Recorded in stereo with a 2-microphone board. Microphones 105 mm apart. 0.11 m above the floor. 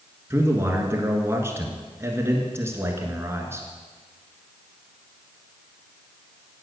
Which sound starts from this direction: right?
A man speaking, at 0.3 s.